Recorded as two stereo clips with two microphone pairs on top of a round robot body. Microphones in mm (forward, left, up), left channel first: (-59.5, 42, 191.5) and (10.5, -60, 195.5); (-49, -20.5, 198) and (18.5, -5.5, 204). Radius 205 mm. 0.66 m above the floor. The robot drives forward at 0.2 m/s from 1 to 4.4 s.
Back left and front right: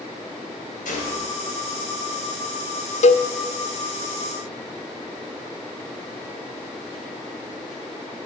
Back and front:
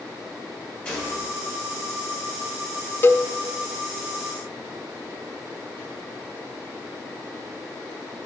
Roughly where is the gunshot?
Behind left.